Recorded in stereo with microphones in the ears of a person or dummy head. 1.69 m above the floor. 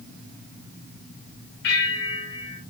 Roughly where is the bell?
Left.